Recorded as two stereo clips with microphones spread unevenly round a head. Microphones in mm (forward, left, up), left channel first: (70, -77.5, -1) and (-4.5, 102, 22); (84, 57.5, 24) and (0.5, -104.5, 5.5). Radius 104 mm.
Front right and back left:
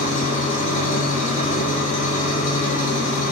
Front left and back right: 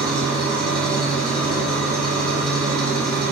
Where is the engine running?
20° right, 1.6 m.